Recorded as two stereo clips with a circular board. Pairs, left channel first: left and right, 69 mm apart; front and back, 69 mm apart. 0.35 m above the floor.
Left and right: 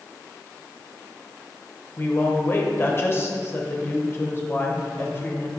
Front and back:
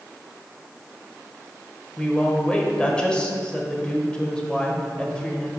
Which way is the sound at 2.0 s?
65° left.